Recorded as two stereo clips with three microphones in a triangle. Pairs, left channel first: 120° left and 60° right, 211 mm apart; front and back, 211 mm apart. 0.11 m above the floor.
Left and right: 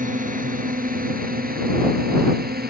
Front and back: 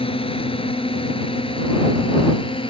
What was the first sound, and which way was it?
A drone, 45° right.